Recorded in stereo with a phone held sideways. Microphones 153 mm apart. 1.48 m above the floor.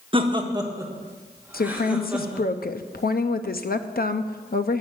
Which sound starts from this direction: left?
A woman speaking, at 1.5 s.